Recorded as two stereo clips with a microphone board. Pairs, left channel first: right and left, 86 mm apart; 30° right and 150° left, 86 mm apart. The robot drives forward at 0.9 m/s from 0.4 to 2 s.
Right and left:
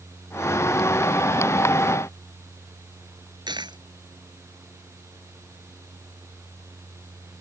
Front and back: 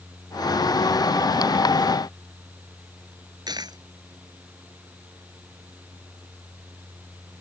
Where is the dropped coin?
115° left.